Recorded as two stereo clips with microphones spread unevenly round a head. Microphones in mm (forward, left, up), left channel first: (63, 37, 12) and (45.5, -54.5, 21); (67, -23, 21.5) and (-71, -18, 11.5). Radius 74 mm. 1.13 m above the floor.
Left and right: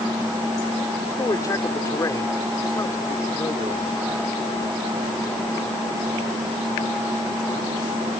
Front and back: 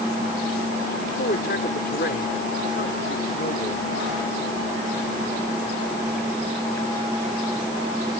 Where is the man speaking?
25° left.